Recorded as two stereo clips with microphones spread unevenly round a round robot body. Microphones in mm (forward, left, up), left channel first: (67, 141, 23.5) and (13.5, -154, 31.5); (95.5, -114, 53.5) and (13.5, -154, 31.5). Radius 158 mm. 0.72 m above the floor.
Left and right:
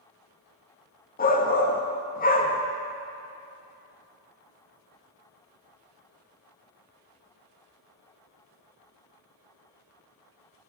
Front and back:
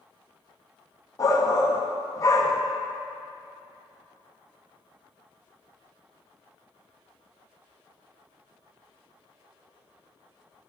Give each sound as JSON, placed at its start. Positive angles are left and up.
{"t": 1.2, "sound": "a shout", "azimuth_deg": 70, "distance_m": 1.0}